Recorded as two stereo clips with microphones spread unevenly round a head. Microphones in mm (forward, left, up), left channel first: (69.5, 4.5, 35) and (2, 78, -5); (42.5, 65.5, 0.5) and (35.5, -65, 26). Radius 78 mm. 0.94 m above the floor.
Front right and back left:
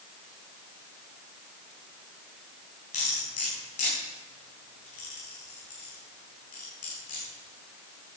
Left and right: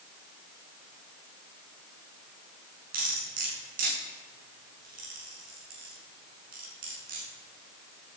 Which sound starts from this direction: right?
Cutlery clinking, at 2.9 s.